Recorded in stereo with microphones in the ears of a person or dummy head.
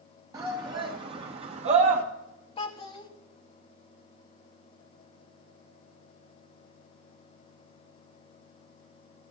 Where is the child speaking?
35° left (ahead or behind), 1.1 m.